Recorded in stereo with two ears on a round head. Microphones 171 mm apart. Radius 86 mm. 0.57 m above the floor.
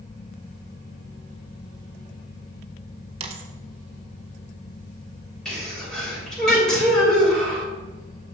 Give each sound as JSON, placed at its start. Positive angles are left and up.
{"t": 3.2, "sound": "a dropped coin", "side_deg": -35, "distance_m": 0.8}
{"t": 5.5, "sound": "a sneeze", "side_deg": 5, "distance_m": 2.5}